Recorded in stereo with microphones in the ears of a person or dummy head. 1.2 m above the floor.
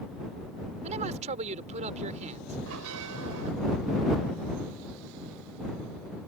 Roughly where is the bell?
Right.